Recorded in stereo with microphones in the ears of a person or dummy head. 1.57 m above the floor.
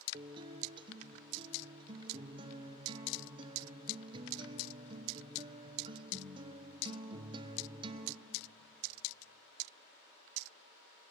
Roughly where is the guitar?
Right.